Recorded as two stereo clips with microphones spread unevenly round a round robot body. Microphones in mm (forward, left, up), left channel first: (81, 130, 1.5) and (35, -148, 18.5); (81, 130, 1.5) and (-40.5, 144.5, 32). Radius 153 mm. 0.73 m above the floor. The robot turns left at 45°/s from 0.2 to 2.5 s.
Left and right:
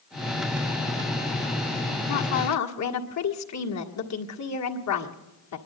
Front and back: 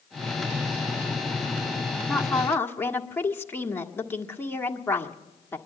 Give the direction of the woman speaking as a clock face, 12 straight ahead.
9 o'clock.